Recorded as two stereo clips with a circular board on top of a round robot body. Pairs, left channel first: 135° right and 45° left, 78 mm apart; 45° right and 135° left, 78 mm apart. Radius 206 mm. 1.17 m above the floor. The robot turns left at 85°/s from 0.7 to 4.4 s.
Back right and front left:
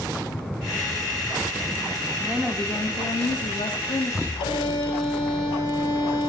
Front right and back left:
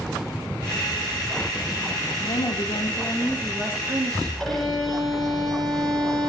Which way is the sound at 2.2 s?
25° right.